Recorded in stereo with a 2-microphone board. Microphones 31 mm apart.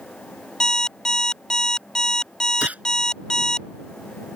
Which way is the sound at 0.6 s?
20° left (ahead or behind).